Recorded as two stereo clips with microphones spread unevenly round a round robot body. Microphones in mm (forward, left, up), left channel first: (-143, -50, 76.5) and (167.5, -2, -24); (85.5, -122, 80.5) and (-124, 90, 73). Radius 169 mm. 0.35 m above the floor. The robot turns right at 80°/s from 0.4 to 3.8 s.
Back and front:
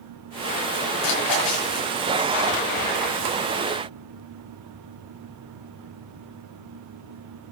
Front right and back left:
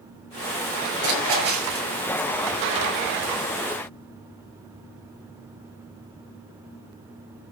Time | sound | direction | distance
1.0 | a splash | 155° left | 9.5 m